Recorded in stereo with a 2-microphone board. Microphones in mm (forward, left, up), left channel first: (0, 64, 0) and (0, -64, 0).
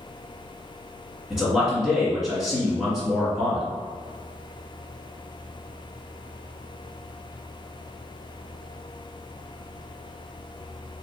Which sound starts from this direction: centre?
A man speaking, at 1.3 s.